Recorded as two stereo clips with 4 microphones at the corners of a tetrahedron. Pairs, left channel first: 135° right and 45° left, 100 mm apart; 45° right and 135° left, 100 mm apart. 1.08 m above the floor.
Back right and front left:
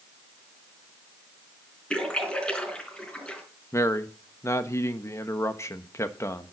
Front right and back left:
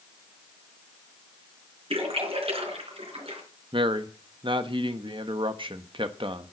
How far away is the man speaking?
About 1.1 m.